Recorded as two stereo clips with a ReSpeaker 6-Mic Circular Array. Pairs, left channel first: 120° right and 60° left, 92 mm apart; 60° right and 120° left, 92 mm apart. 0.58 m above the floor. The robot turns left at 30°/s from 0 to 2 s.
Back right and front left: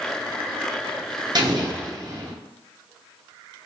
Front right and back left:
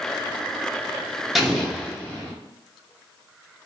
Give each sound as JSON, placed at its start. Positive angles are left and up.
{"t": 1.4, "sound": "an explosion", "azimuth_deg": 35, "distance_m": 0.8}